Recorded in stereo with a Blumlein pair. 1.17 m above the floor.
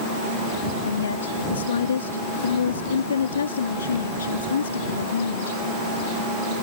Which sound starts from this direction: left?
A woman speaking, at 0.9 s.